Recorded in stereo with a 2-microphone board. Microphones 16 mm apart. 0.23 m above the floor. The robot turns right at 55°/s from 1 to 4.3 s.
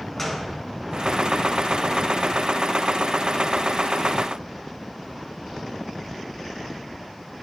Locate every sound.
0.2 s a gunshot: 10° left (ahead or behind), 2 m